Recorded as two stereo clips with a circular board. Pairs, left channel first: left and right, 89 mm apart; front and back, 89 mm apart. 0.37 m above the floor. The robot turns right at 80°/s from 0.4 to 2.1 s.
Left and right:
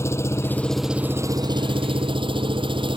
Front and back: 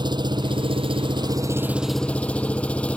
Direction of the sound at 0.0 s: 150° left.